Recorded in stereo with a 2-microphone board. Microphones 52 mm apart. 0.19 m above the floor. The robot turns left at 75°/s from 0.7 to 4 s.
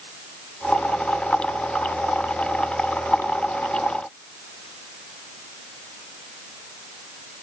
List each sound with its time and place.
Only background noise.